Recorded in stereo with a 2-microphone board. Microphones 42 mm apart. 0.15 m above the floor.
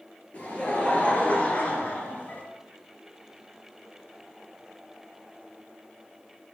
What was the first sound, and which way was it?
Laughter, 30° left (ahead or behind).